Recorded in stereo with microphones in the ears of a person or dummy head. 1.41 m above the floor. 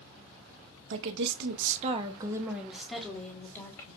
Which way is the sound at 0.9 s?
80° right.